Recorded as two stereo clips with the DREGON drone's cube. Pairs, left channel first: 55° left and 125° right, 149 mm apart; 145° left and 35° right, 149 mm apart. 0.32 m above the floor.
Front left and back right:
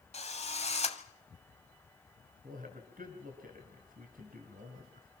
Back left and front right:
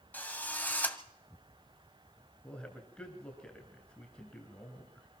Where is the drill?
70° left, 1.7 m.